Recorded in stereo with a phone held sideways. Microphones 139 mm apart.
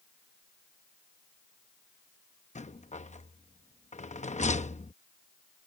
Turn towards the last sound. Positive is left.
turn(degrees=60)  # may be behind; listen again after turning